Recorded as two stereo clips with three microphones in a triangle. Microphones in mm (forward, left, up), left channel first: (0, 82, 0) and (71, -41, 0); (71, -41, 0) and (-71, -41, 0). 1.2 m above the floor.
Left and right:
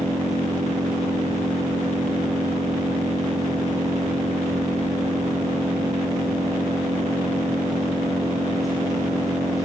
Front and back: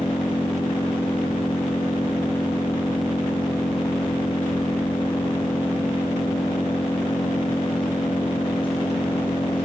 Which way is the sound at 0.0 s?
55° left.